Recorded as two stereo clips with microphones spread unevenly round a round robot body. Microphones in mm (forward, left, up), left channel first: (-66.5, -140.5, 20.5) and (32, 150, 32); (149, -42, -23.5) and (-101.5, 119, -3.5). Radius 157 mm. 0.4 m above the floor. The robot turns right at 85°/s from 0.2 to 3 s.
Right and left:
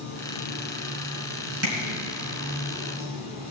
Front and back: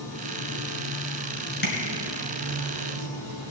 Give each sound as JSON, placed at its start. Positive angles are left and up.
{"t": 0.0, "sound": "running water", "azimuth_deg": -95, "distance_m": 4.0}
{"t": 1.6, "sound": "tapping", "azimuth_deg": 25, "distance_m": 3.0}